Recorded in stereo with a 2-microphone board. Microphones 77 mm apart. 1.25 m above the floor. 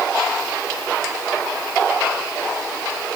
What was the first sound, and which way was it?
Only background noise.